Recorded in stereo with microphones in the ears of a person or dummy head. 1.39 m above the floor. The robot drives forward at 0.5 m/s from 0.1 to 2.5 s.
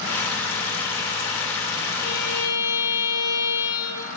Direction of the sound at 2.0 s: 80° left.